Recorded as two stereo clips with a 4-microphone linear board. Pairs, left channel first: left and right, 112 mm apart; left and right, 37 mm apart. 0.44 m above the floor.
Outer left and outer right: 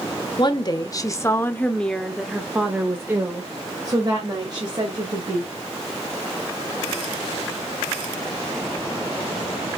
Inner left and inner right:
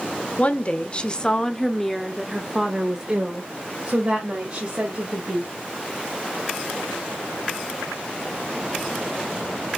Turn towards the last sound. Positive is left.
turn(degrees=-40)  # may be behind; listen again after turning